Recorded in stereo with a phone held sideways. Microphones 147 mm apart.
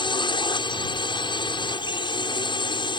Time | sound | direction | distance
0.0 | a drone | 30° left (ahead or behind) | ?